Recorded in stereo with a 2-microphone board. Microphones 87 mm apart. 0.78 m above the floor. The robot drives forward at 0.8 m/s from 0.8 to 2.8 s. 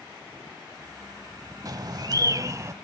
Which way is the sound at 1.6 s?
45° right (ahead or behind).